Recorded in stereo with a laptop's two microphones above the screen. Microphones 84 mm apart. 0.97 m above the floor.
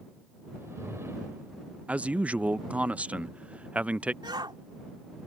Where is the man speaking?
15° right (ahead or behind).